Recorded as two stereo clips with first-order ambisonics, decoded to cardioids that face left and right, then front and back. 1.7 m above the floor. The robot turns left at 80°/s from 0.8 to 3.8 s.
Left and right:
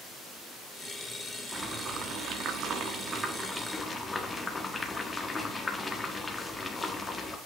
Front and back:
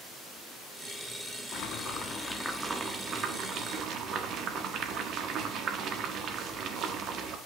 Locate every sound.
1.5 s boiling: 10° right, 1.4 m; by 7.4 s 165° left, 1.4 m